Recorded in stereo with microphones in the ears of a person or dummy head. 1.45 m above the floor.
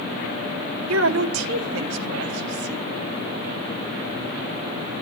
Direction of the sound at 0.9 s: 75° right (ahead or behind).